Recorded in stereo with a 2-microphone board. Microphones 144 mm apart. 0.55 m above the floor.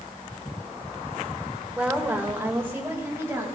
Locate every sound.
1.8 s a woman speaking: 5° right (ahead or behind), 1.9 m; by 3.5 s 20° right (ahead or behind), 3.5 m